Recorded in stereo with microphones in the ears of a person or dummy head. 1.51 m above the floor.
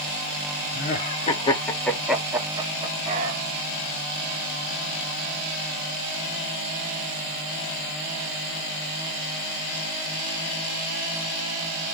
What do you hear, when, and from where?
0.7 s laughter: 45° left (ahead or behind), 1.0 m; by 3.4 s 35° right (ahead or behind), 1.2 m